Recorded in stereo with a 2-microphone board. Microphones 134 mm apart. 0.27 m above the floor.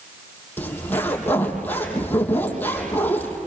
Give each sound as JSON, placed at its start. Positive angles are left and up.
{"t": 0.6, "sound": "a zipper", "side_deg": 15, "distance_m": 5.5}